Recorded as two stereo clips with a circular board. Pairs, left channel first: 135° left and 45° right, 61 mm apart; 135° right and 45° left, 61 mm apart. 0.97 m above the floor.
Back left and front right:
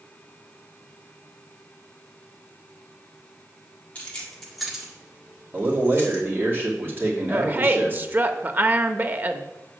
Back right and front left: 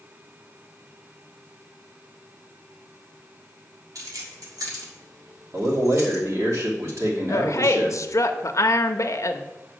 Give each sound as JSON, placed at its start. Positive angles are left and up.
{"t": 4.0, "sound": "keys jangling", "azimuth_deg": 65, "distance_m": 1.9}
{"t": 5.5, "sound": "a man speaking", "azimuth_deg": 10, "distance_m": 2.5}
{"t": 7.3, "sound": "a woman speaking", "azimuth_deg": -105, "distance_m": 0.9}